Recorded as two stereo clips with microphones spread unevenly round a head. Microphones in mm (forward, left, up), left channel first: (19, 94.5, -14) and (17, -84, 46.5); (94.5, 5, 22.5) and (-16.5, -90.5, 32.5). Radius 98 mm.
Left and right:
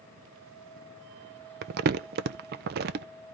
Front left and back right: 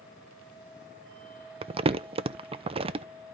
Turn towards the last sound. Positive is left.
turn(degrees=-90)